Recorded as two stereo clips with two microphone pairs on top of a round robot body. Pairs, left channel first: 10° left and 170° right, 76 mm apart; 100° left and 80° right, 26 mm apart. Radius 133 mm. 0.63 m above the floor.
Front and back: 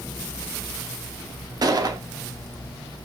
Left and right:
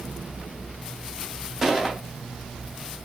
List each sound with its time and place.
1.6 s a gunshot: 155° right, 0.6 m